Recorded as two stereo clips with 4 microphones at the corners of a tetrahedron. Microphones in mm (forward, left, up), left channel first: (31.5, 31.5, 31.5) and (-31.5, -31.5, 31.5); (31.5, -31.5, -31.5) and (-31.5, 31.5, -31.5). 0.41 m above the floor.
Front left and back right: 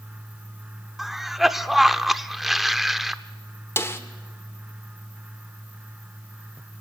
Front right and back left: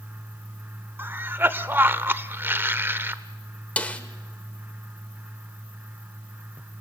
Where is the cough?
140° left, 0.8 m.